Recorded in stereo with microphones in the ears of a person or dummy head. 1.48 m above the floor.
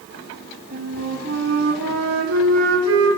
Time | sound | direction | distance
0.7 | a flute | 75° right (ahead or behind) | 2.5 m